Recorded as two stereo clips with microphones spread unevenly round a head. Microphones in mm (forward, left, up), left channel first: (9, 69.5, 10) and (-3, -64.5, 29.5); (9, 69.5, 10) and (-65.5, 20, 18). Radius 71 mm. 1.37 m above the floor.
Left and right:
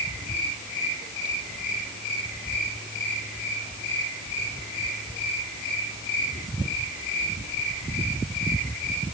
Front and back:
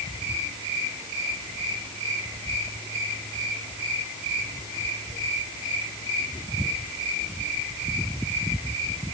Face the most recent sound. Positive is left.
No sound to turn to.